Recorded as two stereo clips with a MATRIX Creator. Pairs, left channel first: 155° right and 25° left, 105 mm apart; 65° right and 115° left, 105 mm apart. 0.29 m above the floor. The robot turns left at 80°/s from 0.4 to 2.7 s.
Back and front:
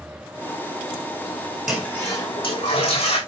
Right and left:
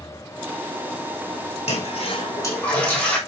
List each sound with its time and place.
1.7 s a toilet flushing: 65° right, 5.5 m; by 3.2 s 145° right, 5.5 m